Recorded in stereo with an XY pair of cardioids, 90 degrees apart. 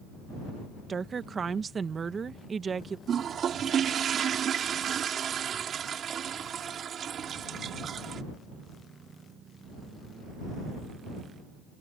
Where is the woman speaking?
45° right.